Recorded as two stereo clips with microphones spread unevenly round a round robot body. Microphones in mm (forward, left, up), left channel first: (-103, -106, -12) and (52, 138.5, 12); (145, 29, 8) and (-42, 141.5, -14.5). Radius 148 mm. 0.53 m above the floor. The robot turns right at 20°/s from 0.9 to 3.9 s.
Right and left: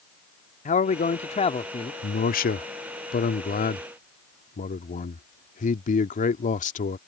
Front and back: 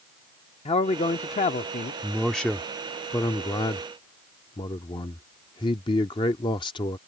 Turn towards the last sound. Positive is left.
turn(degrees=-95)